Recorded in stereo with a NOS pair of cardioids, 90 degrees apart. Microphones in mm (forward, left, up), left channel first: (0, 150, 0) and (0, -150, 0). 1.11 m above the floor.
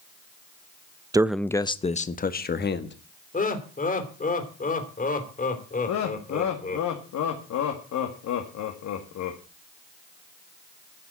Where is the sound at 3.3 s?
25° left, 3 m.